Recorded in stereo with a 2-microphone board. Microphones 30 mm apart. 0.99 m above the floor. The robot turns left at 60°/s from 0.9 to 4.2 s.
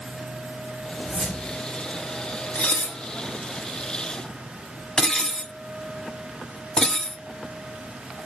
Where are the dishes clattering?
55° left (ahead or behind), 0.6 m; by 8.3 s 25° left (ahead or behind), 0.6 m.